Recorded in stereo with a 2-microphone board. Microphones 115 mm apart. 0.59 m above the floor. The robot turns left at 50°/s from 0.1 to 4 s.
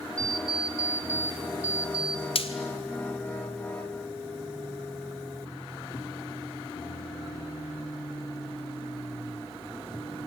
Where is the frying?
60° left (ahead or behind), 2 m; by 2.5 s 65° left (ahead or behind), 2 m.